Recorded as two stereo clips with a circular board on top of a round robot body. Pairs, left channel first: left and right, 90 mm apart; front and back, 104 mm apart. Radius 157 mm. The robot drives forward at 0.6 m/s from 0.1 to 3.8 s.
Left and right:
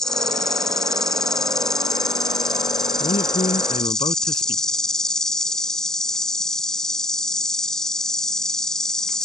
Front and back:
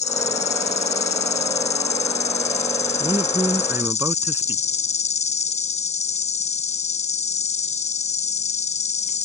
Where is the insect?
5° left.